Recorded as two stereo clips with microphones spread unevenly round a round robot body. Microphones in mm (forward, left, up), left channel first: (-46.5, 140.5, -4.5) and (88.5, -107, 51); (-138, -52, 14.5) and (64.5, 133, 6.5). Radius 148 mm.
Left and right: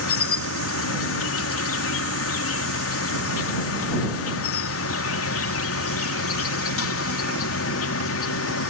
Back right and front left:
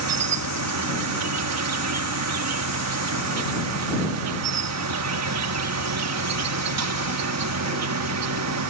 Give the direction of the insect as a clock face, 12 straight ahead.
10 o'clock.